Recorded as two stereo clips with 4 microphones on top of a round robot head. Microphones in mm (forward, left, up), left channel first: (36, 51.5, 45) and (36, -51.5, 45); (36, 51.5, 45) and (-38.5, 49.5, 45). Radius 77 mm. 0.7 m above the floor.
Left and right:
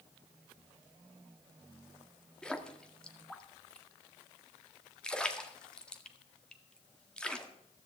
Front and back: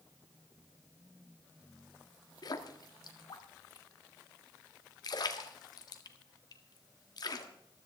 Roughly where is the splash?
Ahead.